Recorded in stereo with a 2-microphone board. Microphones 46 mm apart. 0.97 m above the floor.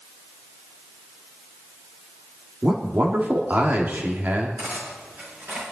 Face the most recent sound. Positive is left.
turn(degrees=-50)  # may be behind; listen again after turning